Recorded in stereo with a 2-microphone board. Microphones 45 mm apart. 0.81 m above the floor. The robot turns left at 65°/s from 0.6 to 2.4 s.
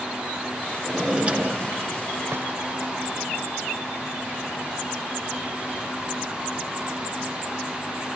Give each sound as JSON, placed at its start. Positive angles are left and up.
{"t": 0.8, "sound": "a drawer", "azimuth_deg": 5, "distance_m": 1.5}